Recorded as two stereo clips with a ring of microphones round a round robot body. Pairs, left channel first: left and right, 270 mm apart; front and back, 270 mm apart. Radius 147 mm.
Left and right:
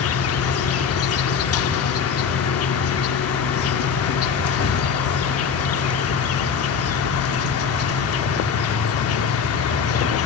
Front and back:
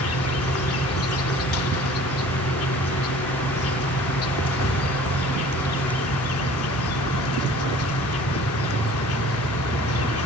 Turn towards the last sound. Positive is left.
turn(degrees=50)